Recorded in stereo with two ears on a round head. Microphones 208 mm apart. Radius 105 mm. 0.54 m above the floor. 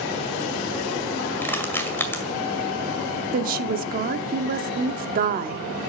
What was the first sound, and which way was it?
Crushing, 10° left (ahead or behind).